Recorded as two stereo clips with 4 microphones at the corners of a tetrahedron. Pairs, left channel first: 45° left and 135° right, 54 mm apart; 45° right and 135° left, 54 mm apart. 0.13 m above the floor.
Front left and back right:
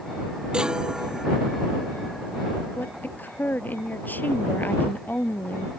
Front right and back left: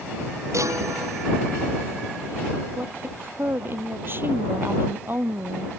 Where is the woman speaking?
90° left.